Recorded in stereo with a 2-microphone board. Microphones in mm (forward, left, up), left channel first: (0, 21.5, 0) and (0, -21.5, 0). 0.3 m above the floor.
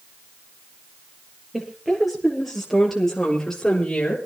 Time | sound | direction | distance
1.5 | a woman speaking | 10° right (ahead or behind) | 8 m